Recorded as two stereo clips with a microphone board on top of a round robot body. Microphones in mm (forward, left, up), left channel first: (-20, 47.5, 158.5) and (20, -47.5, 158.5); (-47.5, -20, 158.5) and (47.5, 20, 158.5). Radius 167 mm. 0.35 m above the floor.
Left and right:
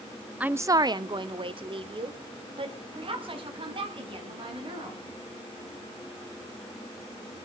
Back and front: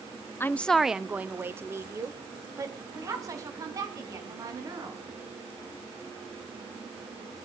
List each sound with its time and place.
0.4 s a woman speaking: 130° right, 0.8 m; by 5.0 s 30° right, 5 m